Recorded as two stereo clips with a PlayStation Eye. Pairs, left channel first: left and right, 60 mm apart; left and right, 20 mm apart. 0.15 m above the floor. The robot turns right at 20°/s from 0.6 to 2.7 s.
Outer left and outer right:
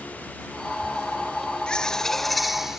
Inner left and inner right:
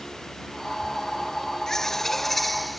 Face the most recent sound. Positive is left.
turn(degrees=-5)  # may be behind; listen again after turning